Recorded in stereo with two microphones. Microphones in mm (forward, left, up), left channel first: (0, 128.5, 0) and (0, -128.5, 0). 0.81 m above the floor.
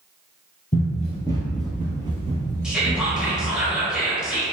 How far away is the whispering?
About 0.9 m.